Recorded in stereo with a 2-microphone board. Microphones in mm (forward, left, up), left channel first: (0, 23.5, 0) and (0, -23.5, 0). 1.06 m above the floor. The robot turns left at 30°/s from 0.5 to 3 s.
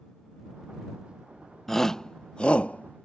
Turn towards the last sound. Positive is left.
turn(degrees=35)  # may be behind; listen again after turning